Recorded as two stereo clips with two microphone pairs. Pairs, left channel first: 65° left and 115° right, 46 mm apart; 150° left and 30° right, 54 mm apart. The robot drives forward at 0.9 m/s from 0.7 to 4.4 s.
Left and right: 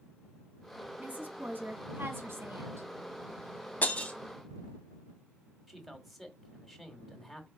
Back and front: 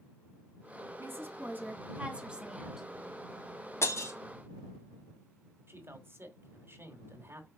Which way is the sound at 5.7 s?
25° right.